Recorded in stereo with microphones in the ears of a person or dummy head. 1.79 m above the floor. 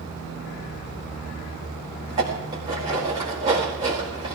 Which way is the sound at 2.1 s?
25° right (ahead or behind).